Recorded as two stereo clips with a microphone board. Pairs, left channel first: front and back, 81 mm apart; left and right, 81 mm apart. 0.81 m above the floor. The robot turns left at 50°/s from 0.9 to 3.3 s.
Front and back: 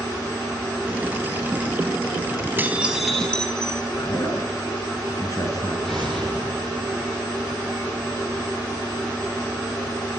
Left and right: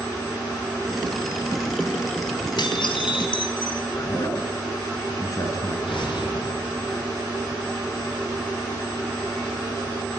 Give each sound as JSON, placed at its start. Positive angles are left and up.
{"t": 2.6, "sound": "dishes clattering", "azimuth_deg": 115, "distance_m": 3.5}
{"t": 4.0, "sound": "a man speaking", "azimuth_deg": 45, "distance_m": 8.0}
{"t": 5.8, "sound": "an explosion", "azimuth_deg": 85, "distance_m": 9.5}